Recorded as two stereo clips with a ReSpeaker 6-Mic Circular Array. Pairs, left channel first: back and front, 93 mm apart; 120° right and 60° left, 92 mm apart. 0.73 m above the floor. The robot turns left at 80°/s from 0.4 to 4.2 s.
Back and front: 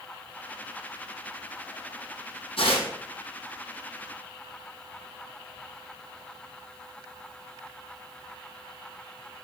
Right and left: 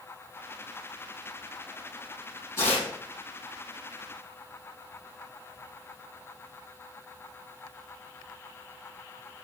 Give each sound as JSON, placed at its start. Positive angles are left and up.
{"t": 2.6, "sound": "tearing paper", "azimuth_deg": 180, "distance_m": 5.5}